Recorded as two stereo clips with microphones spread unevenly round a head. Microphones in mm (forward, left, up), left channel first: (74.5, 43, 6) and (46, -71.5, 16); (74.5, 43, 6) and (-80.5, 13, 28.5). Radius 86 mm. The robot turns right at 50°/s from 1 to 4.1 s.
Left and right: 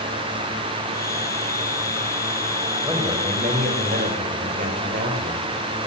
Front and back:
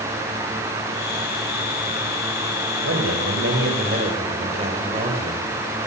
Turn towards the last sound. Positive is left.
turn(degrees=-110)